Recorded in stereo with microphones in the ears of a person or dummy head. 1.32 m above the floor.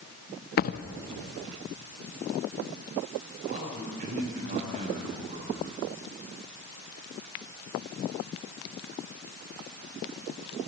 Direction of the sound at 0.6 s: 45° left (ahead or behind).